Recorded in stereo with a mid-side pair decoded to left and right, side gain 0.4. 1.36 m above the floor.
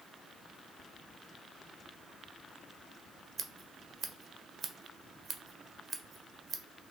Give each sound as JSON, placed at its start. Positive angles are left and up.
{"t": 3.4, "sound": "scissors", "azimuth_deg": -40, "distance_m": 0.8}